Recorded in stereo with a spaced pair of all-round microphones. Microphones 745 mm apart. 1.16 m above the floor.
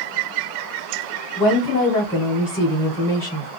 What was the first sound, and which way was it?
A woman speaking, 5° left (ahead or behind).